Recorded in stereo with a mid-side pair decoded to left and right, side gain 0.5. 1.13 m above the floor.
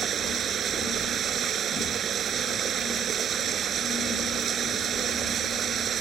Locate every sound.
0.0 s running water: 50° right